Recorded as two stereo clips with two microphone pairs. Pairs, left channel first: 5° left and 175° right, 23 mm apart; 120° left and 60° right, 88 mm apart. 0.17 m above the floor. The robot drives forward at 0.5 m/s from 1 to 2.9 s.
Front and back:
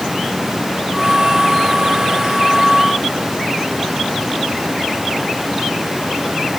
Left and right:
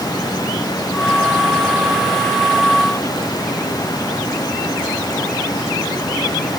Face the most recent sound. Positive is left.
No sound to turn to.